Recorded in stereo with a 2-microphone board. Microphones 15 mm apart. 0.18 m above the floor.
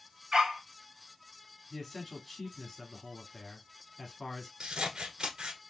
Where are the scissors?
65° right (ahead or behind), 1.1 m.